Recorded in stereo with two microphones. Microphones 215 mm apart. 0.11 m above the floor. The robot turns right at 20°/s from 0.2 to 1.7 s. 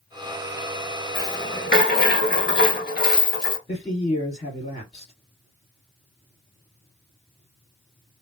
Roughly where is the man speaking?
Left.